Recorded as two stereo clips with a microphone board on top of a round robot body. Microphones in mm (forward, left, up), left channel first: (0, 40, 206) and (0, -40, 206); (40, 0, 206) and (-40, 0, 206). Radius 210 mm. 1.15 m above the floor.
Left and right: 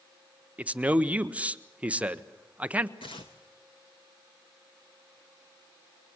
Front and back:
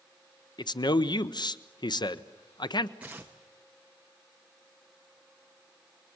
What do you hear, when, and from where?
0.6 s a man speaking: 15° right, 1.1 m
3.0 s tearing paper: 105° left, 0.6 m